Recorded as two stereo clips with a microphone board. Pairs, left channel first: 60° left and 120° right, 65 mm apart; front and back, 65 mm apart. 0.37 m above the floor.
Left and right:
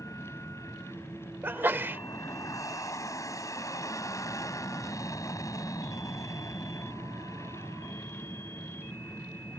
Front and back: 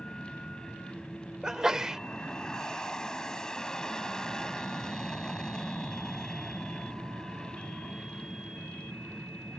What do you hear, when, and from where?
0.0 s an aircraft: 80° left
1.4 s a sneeze: 105° right